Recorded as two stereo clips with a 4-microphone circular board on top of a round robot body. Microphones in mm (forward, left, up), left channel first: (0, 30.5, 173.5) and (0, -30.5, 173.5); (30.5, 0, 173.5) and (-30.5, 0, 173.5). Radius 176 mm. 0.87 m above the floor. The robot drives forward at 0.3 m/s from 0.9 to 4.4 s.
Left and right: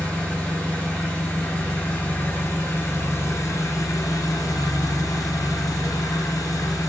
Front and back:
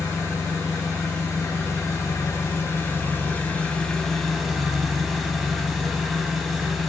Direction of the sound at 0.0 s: 25° left.